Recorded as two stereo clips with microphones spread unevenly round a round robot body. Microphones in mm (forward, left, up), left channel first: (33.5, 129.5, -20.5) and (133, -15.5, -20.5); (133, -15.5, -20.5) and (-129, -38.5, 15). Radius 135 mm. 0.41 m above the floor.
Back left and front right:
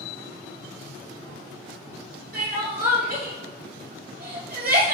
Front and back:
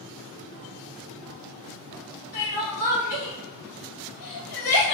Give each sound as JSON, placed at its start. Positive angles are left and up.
{"t": 2.3, "sound": "crying", "azimuth_deg": -20, "distance_m": 2.0}